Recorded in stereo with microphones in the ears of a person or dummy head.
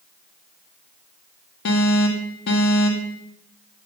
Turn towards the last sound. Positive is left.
turn(degrees=60)  # may be behind; listen again after turning